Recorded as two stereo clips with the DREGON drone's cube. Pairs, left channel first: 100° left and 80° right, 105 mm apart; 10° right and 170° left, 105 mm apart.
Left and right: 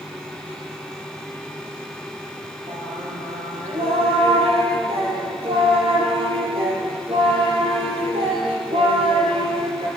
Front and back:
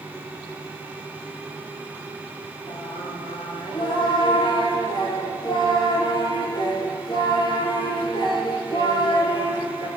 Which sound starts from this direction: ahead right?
Singing, at 2.7 s.